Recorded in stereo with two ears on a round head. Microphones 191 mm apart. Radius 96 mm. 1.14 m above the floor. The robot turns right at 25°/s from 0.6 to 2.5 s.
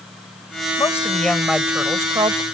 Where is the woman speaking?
165° left; by 2.4 s 155° right.